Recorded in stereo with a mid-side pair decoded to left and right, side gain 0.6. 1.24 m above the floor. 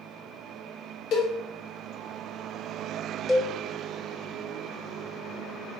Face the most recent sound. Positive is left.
turn(degrees=30)